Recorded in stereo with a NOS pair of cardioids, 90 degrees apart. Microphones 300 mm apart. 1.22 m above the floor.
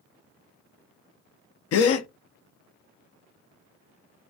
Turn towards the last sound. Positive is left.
turn(degrees=55)